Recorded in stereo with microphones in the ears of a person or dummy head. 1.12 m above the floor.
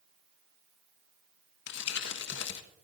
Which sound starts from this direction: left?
Crumpling, at 1.7 s.